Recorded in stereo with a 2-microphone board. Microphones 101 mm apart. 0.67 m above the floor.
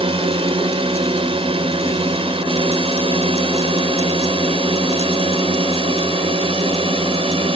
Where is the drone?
60° right (ahead or behind); by 7.6 s 65° right (ahead or behind).